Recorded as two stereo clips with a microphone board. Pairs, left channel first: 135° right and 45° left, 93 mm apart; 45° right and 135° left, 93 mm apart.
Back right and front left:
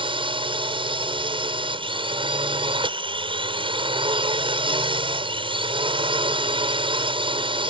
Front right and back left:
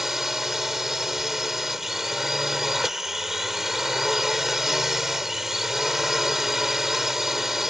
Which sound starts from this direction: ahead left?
A drone, at 0.0 s.